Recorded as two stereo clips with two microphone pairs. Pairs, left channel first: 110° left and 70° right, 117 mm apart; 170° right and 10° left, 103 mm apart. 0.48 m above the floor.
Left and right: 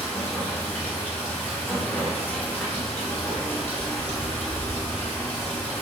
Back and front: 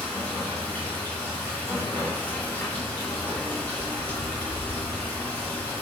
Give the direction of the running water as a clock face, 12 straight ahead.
7 o'clock.